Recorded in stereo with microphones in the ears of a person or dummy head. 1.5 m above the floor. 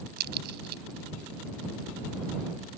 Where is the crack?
50° right (ahead or behind).